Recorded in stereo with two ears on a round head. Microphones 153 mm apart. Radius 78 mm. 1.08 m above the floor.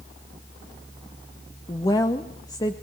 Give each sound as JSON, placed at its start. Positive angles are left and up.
{"t": 1.7, "sound": "a woman speaking", "side_deg": 20, "distance_m": 1.6}